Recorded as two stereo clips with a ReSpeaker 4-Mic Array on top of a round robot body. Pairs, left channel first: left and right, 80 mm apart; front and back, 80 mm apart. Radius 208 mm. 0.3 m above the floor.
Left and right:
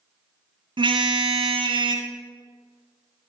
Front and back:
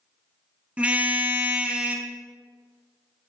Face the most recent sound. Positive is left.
turn(degrees=-105)